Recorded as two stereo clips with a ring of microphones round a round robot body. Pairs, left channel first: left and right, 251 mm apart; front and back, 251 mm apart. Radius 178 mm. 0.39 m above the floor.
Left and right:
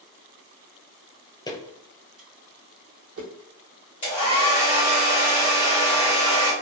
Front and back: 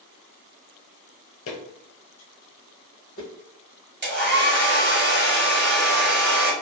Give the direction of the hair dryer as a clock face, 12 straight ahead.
7 o'clock.